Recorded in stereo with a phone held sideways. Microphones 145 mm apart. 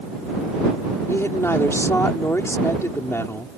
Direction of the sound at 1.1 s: 15° left (ahead or behind).